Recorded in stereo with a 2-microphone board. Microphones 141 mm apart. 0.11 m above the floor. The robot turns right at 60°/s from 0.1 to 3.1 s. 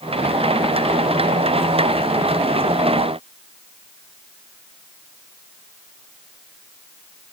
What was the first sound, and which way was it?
Only background noise.